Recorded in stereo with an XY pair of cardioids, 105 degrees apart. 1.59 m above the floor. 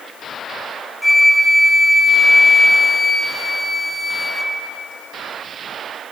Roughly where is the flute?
Ahead.